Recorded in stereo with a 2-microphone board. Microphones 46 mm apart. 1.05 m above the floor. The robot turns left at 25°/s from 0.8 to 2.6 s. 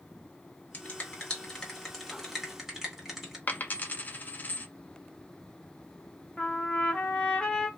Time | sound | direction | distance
0.7 | a finger snap | 35° left (ahead or behind) | 1.3 m
3.5 | a dropped coin | 40° left (ahead or behind) | 0.5 m
6.4 | a trumpet | 15° left (ahead or behind) | 0.8 m